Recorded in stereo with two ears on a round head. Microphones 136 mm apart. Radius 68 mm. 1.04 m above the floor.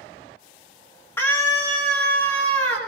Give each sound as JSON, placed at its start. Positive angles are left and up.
{"t": 1.2, "sound": "a scream", "side_deg": 15, "distance_m": 1.8}